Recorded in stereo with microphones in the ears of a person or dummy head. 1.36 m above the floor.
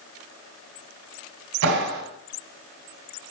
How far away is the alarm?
I don't hear an alarm.